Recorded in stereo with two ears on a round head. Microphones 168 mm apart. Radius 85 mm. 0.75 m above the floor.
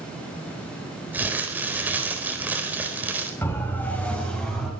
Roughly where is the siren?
Centre.